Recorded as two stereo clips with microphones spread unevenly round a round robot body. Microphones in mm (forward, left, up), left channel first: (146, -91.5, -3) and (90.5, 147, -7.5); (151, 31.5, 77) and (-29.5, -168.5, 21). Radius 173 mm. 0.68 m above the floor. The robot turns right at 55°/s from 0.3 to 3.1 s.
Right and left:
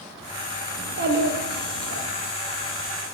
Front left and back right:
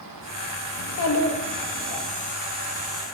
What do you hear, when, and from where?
0.8 s a child speaking: 60° left, 0.7 m; by 2.1 s 135° left, 0.7 m